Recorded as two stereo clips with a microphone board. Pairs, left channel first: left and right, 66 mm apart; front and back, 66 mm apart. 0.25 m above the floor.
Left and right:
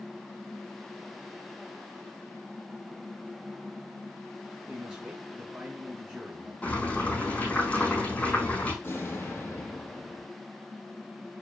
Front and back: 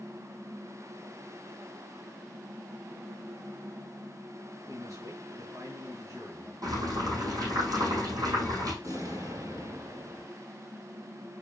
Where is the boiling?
155° left, 4 m.